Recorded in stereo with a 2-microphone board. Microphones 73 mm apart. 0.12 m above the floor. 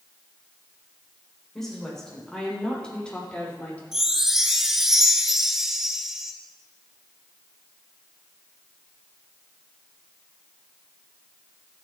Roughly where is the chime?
Centre.